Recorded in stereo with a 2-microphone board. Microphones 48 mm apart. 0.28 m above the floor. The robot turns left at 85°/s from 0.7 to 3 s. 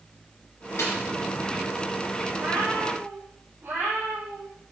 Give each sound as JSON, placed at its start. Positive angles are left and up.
{"t": 0.8, "sound": "a snare drum", "side_deg": 65, "distance_m": 6.0}
{"t": 2.3, "sound": "a cat meowing", "azimuth_deg": -70, "distance_m": 6.5}